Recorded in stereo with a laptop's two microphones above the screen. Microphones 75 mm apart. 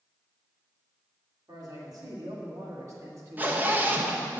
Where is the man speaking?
60° right (ahead or behind), 2.5 m; by 4.4 s 25° right (ahead or behind), 1.2 m.